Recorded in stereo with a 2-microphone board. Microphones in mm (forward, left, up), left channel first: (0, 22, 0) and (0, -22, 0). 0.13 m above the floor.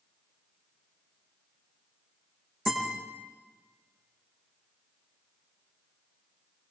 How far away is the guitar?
About 6.5 m.